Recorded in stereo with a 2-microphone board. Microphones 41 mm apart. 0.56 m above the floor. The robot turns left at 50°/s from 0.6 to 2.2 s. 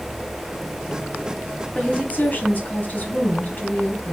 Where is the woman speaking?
20° left (ahead or behind), 4 m; by 4.2 s 40° left (ahead or behind), 4 m.